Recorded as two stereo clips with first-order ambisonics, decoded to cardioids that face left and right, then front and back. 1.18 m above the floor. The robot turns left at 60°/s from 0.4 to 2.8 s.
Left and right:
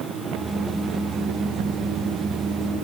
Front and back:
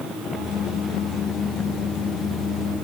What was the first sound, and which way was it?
Only background noise.